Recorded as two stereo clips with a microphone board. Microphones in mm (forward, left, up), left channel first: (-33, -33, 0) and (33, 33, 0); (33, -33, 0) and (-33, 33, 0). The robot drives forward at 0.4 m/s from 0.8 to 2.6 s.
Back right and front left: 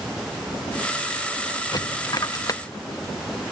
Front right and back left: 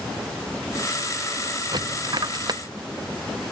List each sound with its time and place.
1.7 s a dropped coin: straight behind